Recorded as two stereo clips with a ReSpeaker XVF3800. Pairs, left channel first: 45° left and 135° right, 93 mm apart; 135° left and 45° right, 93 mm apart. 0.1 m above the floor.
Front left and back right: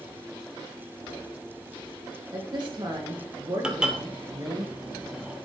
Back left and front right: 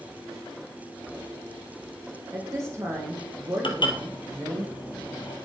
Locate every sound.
2.3 s a woman speaking: 100° right, 4 m
3.6 s dishes clattering: 145° left, 1.8 m